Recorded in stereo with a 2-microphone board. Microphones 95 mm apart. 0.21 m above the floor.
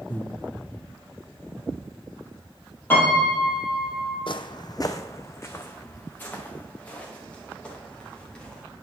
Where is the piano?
20° left (ahead or behind), 3.5 m.